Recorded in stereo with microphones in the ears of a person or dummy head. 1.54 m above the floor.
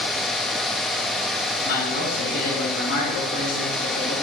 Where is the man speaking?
80° left, 5 m.